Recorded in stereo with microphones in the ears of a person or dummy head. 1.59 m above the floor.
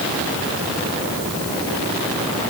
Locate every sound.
Only background noise.